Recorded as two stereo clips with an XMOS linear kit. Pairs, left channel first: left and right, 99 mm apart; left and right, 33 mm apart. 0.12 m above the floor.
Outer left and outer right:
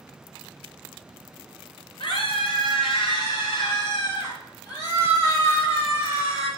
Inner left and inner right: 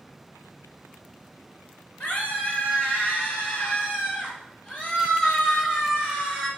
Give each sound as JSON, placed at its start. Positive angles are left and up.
{"t": 2.0, "sound": "a scream", "side_deg": 55, "distance_m": 2.0}